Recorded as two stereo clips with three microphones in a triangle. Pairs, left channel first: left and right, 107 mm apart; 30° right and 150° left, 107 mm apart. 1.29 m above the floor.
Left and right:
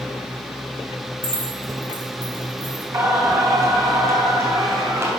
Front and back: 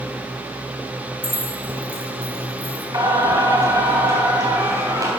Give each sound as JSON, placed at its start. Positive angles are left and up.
{"t": 1.2, "sound": "keys jangling", "azimuth_deg": -135, "distance_m": 3.0}
{"t": 2.9, "sound": "singing", "azimuth_deg": -155, "distance_m": 3.0}